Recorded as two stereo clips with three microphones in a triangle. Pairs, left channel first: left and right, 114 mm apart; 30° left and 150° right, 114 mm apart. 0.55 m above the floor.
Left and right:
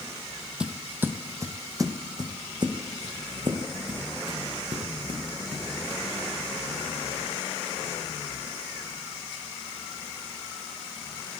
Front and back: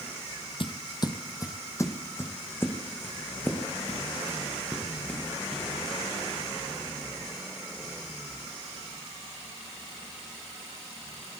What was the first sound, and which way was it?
Footsteps, 10° right.